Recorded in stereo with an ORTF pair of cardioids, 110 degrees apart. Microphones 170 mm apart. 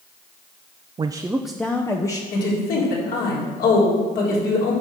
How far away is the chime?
I don't hear a chime.